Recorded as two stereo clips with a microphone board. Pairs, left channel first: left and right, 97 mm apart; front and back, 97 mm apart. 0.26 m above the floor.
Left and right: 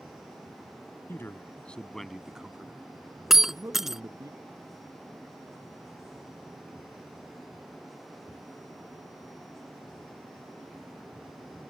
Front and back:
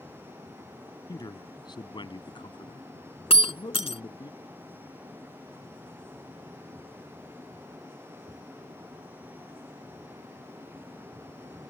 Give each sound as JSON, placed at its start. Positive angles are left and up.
{"t": 1.1, "sound": "a man speaking", "azimuth_deg": 30}
{"t": 3.3, "sound": "breaking glass", "azimuth_deg": -5}